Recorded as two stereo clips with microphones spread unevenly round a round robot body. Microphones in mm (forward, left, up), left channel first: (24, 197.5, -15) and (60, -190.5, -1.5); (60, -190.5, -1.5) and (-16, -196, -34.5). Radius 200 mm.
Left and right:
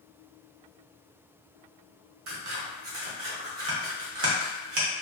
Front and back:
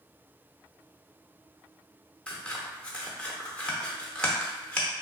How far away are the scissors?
About 0.6 m.